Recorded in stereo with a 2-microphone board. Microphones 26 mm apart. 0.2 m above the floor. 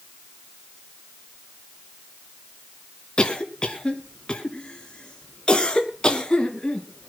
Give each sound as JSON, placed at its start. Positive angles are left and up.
{"t": 3.2, "sound": "a cough", "side_deg": 30, "distance_m": 3.0}